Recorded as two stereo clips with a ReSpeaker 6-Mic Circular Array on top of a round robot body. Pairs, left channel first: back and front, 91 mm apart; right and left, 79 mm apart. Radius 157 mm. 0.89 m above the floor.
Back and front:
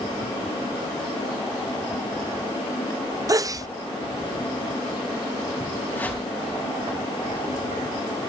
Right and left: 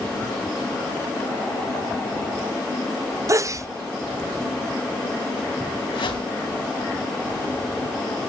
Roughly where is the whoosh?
Right.